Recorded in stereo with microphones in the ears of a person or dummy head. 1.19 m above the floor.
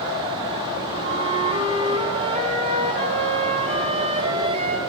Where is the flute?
40° right (ahead or behind), 3 m.